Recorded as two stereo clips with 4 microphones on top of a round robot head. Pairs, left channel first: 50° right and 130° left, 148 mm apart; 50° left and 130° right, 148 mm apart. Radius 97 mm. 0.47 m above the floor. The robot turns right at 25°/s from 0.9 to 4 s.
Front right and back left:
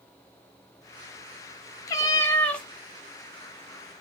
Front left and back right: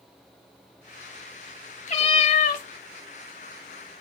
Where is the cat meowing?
15° left, 0.7 m; by 2.6 s 35° left, 0.7 m.